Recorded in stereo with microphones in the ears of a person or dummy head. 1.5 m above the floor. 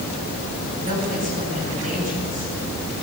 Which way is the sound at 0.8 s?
40° right (ahead or behind).